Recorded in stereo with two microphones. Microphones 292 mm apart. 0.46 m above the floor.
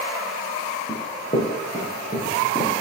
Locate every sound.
0.9 s running footsteps: 20° left (ahead or behind), 3 m; by 2.7 s 25° left (ahead or behind), 6 m